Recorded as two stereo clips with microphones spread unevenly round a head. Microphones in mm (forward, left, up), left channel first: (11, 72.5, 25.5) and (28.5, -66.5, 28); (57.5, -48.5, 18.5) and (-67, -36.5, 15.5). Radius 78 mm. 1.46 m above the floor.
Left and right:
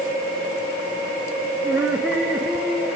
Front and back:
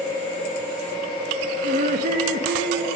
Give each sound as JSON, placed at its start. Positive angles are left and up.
{"t": 1.6, "sound": "laughter", "azimuth_deg": -160, "distance_m": 0.8}